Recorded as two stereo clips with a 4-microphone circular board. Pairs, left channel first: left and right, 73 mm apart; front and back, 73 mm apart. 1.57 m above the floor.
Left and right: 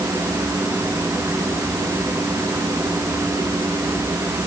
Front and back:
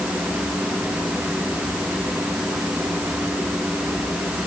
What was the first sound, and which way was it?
Only background noise.